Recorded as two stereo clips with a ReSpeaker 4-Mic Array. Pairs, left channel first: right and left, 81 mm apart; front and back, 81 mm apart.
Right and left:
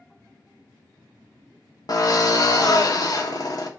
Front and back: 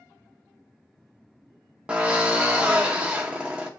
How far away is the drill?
About 0.7 m.